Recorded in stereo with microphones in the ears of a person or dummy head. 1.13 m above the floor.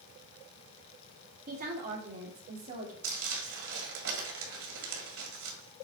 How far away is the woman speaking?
About 2 m.